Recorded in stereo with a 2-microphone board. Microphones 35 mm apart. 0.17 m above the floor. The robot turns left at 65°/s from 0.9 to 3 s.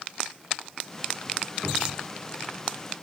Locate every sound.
1.6 s a cupboard door: 30° left (ahead or behind), 2 m; by 2.1 s 40° left (ahead or behind), 2 m